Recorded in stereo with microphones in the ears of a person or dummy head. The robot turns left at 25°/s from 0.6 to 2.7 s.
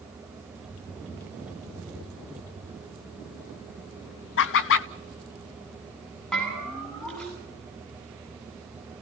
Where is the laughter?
60° left (ahead or behind), 0.8 m.